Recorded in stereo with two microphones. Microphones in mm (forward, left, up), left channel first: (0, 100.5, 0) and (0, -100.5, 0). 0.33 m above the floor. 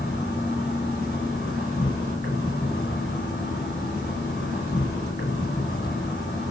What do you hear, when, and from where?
0.0 s an insect: 50° left (ahead or behind), 4.5 m